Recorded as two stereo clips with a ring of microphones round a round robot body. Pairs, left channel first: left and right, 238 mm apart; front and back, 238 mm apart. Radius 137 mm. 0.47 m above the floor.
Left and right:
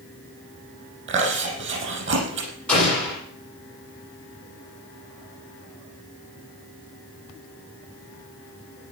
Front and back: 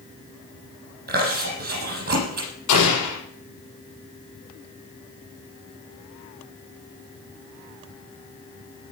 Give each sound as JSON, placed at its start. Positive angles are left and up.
{"t": 1.1, "sound": "chewing", "azimuth_deg": -130, "distance_m": 6.0}
{"t": 2.7, "sound": "an explosion", "azimuth_deg": 5, "distance_m": 6.5}